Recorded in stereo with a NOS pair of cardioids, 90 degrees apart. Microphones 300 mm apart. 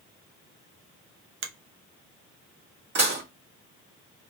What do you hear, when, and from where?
1.4 s a finger snap: 45° right, 0.7 m
3.0 s dishes clattering: 35° right, 1.7 m